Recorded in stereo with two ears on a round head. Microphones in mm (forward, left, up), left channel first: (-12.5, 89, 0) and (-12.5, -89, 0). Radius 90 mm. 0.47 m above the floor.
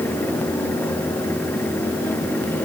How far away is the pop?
I don't hear a pop.